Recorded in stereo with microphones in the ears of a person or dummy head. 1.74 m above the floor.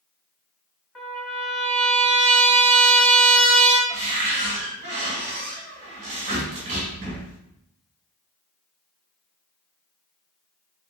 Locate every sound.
0.9 s a trumpet: 10° left (ahead or behind), 1.1 m
3.9 s a cupboard door: 25° right (ahead or behind), 1.1 m